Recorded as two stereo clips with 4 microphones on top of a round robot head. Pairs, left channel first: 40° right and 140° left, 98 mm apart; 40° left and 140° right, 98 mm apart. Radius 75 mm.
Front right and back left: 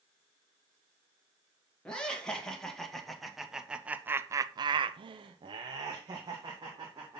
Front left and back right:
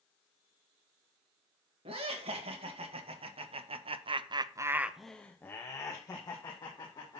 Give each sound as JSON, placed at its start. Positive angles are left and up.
{"t": 1.9, "sound": "laughter", "azimuth_deg": -120, "distance_m": 2.5}